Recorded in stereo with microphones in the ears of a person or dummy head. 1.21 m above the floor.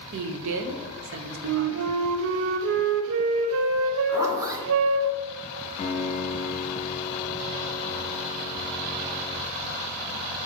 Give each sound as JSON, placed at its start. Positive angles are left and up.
{"t": 0.1, "sound": "a woman speaking", "side_deg": -70, "distance_m": 0.8}
{"t": 1.4, "sound": "a flute", "side_deg": -70, "distance_m": 0.6}
{"t": 4.1, "sound": "a zipper", "side_deg": -15, "distance_m": 1.0}
{"t": 5.8, "sound": "a piano", "side_deg": 30, "distance_m": 0.9}